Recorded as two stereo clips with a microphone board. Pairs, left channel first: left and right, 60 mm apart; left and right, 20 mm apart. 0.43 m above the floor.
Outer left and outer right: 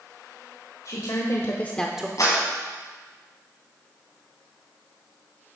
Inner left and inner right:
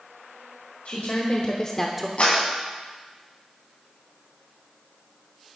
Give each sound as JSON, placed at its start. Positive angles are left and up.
{"t": 0.8, "sound": "a woman speaking", "side_deg": 65, "distance_m": 1.7}
{"t": 2.2, "sound": "a clap", "side_deg": 60, "distance_m": 2.5}